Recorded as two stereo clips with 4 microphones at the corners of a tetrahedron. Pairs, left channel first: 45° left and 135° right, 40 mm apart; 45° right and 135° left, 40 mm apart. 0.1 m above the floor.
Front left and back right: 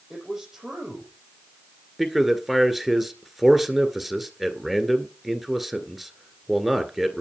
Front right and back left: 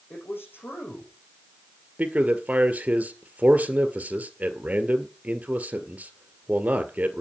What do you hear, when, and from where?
0.1 s a man speaking: 50° right, 5 m
2.0 s a man speaking: 145° left, 1.8 m